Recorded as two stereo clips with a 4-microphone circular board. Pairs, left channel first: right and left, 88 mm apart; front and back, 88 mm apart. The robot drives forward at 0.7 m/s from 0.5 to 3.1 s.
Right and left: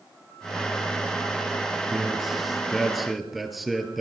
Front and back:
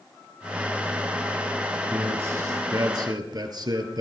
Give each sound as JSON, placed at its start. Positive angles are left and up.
{"t": 1.9, "sound": "a man speaking", "azimuth_deg": 175, "distance_m": 1.1}